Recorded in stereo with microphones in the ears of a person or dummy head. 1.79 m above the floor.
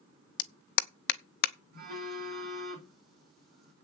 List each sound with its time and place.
0.4 s a clap: 65° left (ahead or behind), 0.8 m
1.7 s a phone buzzing: 60° right (ahead or behind), 4 m